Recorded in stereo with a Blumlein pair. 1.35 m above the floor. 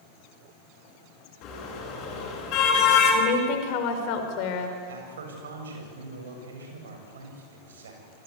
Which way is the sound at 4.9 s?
65° right.